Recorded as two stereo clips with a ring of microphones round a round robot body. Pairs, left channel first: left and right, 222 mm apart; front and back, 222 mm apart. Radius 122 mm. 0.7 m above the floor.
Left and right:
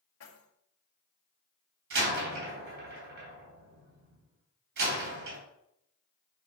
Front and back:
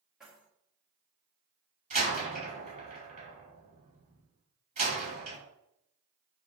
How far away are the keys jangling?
About 2 m.